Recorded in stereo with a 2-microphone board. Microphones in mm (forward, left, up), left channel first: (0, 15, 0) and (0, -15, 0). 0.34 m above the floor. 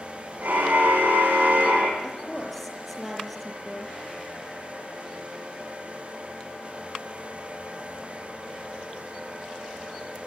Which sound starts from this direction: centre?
A woman speaking, at 2.0 s.